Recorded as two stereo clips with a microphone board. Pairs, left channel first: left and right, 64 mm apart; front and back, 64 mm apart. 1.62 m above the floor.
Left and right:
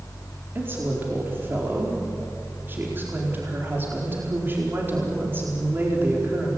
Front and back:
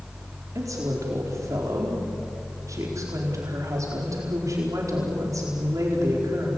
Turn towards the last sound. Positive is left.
turn(degrees=-150)